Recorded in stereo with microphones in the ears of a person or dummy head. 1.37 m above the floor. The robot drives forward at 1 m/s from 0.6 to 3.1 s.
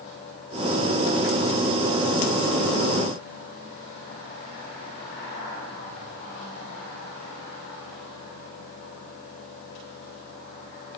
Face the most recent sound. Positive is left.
No sound to turn to.